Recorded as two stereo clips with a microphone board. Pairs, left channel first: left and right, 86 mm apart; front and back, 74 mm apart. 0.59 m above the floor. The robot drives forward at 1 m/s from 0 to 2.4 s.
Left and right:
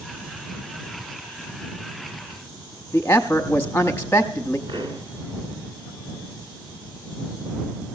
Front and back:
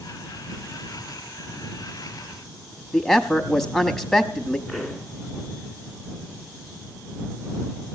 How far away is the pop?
About 2 m.